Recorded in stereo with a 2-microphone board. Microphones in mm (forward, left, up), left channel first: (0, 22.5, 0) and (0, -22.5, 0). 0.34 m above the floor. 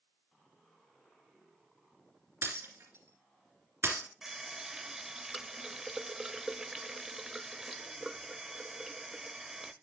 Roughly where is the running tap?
Centre.